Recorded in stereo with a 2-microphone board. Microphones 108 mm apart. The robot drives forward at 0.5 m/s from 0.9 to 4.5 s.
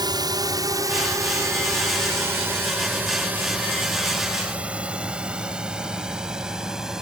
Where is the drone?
40° right (ahead or behind); by 7.0 s 5° right (ahead or behind).